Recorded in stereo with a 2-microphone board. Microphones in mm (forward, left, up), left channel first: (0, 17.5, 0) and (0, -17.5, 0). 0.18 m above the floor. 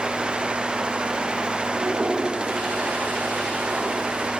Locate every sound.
1.7 s a toilet flushing: 80° right, 9.5 m